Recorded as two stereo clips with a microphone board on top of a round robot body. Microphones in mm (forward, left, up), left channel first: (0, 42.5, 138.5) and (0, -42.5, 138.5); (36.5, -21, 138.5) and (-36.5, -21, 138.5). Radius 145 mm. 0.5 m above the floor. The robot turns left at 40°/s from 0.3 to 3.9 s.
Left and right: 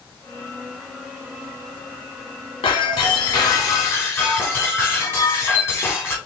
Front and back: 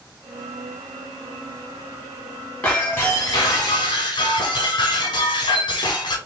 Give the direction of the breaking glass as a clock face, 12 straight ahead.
9 o'clock.